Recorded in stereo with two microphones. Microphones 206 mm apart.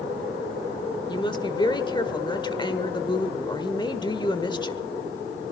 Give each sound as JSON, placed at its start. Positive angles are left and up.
{"t": 1.1, "sound": "a woman speaking", "side_deg": 20, "distance_m": 1.2}